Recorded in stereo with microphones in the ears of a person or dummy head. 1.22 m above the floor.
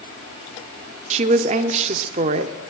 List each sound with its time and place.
1.1 s a woman speaking: 40° right (ahead or behind), 0.7 m